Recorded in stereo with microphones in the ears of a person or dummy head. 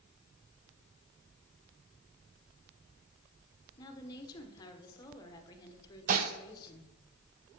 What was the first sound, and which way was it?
A woman speaking, 20° left (ahead or behind).